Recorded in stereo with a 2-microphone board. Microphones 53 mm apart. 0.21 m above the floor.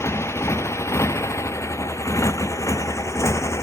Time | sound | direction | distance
0.0 | a motorcycle | 65° left (ahead or behind) | ?